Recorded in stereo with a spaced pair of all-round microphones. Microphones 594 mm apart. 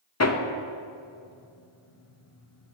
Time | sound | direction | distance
0.2 | hammering | 30° left (ahead or behind) | 0.5 m